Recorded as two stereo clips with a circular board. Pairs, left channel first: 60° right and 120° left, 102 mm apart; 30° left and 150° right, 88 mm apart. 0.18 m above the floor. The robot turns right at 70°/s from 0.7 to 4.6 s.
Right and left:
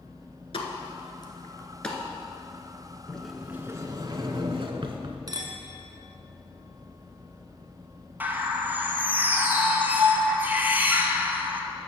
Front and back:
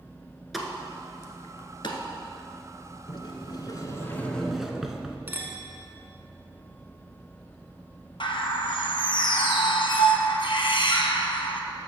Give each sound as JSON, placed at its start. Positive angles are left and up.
{"t": 0.5, "sound": "a pop", "azimuth_deg": -60, "distance_m": 1.1}
{"t": 3.1, "sound": "a sliding door", "azimuth_deg": 20, "distance_m": 0.7}
{"t": 5.3, "sound": "a clink", "azimuth_deg": 150, "distance_m": 1.0}
{"t": 8.2, "sound": "a bird", "azimuth_deg": 50, "distance_m": 0.8}